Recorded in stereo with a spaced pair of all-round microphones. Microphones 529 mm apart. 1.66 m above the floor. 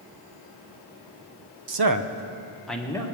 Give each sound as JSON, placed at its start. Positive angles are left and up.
{"t": 1.7, "sound": "a man speaking", "side_deg": -60, "distance_m": 0.7}